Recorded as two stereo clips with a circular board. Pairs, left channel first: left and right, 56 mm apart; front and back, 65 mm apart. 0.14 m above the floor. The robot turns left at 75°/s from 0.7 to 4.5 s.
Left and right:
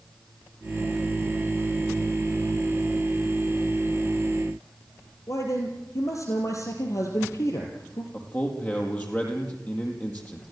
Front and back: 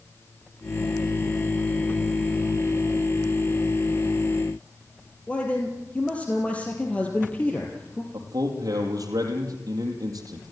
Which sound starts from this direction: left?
A man speaking, at 5.3 s.